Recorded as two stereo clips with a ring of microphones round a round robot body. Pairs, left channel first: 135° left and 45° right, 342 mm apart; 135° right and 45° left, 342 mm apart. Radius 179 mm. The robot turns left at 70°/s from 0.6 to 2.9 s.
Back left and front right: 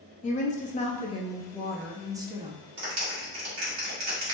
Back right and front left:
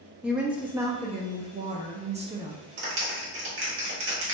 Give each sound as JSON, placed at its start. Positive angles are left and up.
{"t": 0.2, "sound": "a woman speaking", "azimuth_deg": 125, "distance_m": 0.5}
{"t": 2.8, "sound": "a clap", "azimuth_deg": 0, "distance_m": 1.2}